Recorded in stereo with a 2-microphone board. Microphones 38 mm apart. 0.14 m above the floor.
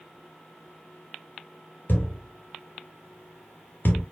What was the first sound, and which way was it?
A thud, 60° left (ahead or behind).